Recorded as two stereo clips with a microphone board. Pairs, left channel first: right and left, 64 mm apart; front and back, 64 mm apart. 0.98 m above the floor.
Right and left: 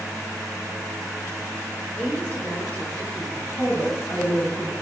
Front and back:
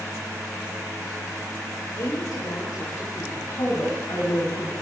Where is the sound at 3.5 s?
35° right, 6.5 m.